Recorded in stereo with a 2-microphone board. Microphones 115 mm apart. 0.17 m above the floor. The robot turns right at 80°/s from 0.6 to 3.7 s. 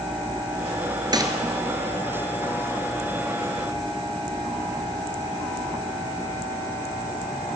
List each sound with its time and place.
1.1 s a gunshot: 40° right (ahead or behind), 1.4 m; by 1.3 s 25° right (ahead or behind), 1.4 m